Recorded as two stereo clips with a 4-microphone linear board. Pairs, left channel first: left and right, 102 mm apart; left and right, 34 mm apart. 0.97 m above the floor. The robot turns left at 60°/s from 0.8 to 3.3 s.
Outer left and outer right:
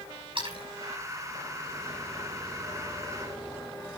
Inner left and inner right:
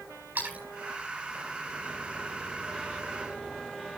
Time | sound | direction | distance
0.3 | a splash | 60° right (ahead or behind) | 8 m